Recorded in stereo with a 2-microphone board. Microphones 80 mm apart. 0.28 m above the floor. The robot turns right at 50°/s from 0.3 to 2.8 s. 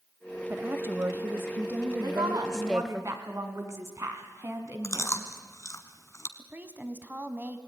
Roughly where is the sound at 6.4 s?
Right.